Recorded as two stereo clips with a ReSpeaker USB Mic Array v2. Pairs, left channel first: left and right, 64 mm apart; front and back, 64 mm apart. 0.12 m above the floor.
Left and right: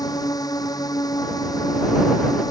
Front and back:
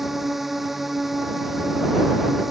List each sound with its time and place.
0.0 s a drone: 95° left